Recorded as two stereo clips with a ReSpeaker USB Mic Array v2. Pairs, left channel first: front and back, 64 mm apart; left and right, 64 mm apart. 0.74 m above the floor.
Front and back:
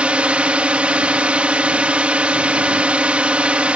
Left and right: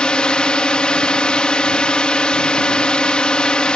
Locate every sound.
0.0 s a drone: 140° left